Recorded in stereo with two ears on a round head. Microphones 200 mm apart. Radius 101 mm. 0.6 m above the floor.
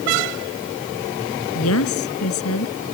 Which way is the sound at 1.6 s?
65° left (ahead or behind).